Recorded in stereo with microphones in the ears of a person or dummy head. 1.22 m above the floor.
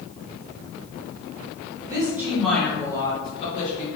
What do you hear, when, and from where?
1.9 s a woman speaking: 20° right (ahead or behind), 1.1 m; by 3.9 s 40° left (ahead or behind), 1.5 m